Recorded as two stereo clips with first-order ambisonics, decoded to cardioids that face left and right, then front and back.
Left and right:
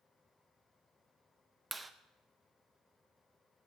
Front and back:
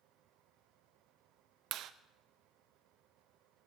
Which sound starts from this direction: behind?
A clap, at 1.7 s.